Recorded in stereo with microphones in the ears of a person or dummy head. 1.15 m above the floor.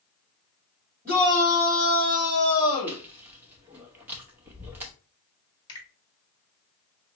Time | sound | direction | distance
1.1 | a shout | 10° left (ahead or behind) | 3 m
2.9 | chewing | 10° right (ahead or behind) | 0.9 m
5.7 | a finger snap | 25° left (ahead or behind) | 1.9 m